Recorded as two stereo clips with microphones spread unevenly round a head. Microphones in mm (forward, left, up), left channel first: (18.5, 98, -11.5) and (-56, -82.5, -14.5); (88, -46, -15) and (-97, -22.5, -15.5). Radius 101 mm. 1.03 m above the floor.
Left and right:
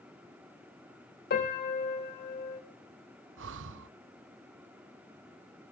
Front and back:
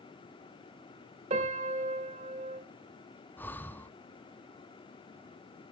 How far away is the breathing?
About 0.8 m.